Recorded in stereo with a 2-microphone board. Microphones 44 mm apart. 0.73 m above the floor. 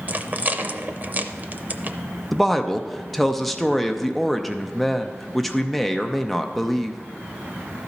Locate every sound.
0.1 s a rattle: 40° right (ahead or behind), 0.5 m
2.3 s a woman speaking: 5° left (ahead or behind), 0.6 m